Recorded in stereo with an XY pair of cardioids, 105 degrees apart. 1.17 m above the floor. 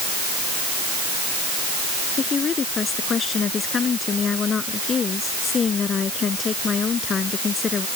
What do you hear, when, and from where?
2.2 s a woman speaking: 45° left